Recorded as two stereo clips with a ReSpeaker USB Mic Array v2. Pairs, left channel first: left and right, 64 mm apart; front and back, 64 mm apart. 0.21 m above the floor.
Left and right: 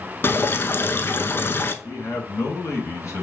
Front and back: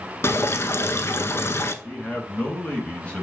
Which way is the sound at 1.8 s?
65° left.